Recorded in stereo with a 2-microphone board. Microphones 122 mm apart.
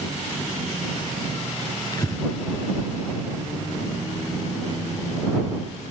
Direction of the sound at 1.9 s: 30° left (ahead or behind).